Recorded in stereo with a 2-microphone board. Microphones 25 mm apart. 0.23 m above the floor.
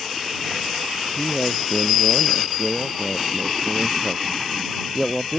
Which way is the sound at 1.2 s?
Centre (ahead or behind).